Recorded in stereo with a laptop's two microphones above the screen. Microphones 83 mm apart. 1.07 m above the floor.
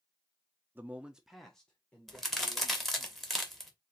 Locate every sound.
0.8 s a man speaking: 25° right (ahead or behind), 0.7 m; by 3.1 s 20° left (ahead or behind), 1.9 m
2.1 s a crack: 5° left (ahead or behind), 1.0 m